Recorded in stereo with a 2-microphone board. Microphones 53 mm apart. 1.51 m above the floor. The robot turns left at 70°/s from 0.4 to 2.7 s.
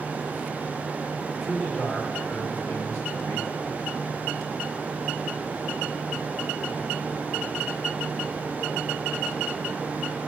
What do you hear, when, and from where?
1.4 s a man speaking: 175° right, 1.6 m; by 3.7 s 95° left, 1.6 m